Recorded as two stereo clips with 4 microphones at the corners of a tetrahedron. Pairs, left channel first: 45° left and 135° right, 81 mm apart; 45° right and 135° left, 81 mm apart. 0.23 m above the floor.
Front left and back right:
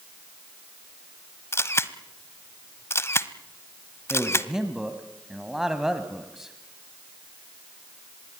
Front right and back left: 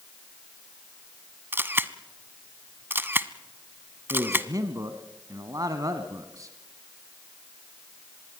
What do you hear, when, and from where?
1.5 s a camera shutter: 85° left, 0.9 m
4.1 s a man speaking: 140° left, 1.4 m